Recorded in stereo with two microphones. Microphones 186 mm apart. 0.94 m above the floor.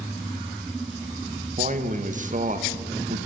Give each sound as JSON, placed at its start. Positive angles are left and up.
{"t": 1.6, "sound": "a man speaking", "side_deg": -40, "distance_m": 0.5}